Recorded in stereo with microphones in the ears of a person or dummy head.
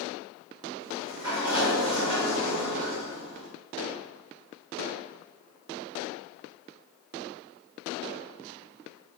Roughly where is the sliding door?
Right.